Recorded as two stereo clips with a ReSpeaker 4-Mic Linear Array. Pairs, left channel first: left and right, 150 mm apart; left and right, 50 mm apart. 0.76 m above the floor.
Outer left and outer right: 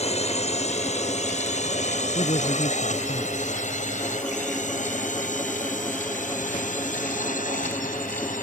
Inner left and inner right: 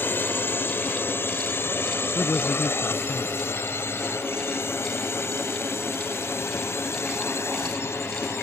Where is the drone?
45° left (ahead or behind); by 8.4 s 60° left (ahead or behind).